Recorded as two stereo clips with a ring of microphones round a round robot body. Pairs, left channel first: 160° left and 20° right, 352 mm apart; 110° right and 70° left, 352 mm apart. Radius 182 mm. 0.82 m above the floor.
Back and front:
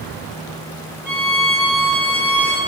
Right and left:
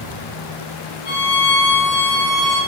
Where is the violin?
110° right, 4 m.